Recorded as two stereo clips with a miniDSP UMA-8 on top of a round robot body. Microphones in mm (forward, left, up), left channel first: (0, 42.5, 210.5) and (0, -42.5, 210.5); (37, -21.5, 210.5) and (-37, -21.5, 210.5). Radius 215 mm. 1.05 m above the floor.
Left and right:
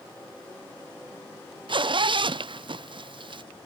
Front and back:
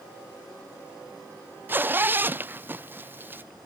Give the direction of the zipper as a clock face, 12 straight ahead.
4 o'clock.